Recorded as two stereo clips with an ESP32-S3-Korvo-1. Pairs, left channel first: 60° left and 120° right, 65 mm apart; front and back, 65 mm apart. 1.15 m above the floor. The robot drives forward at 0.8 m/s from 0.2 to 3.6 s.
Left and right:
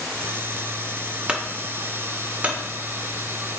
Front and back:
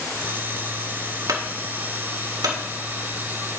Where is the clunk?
160° left, 1.1 m; by 2.6 s 170° left, 2 m.